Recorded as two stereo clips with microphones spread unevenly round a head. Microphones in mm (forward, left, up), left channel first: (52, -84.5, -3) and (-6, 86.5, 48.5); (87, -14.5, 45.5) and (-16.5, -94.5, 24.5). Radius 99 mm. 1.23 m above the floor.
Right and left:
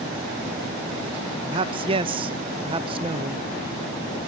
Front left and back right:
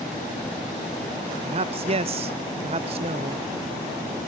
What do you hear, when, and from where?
1.5 s a man speaking: straight behind, 0.8 m